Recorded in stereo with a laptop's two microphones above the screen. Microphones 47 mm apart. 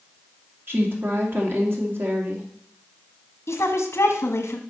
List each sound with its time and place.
0.7 s a woman speaking: 50° right (ahead or behind), 2.5 m
3.5 s a woman speaking: 60° left (ahead or behind), 1.3 m